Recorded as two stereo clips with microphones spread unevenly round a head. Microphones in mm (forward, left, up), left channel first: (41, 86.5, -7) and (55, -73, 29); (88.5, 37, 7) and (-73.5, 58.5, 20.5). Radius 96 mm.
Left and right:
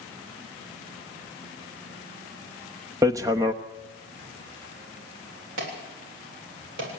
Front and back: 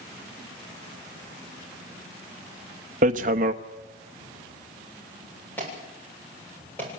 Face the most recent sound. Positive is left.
turn(degrees=-90)